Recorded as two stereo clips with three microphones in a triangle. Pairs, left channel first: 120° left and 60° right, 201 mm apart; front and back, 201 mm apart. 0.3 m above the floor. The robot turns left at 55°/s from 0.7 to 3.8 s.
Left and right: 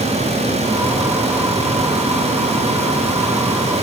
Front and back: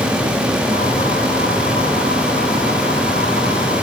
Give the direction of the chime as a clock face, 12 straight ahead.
No chime in this recording.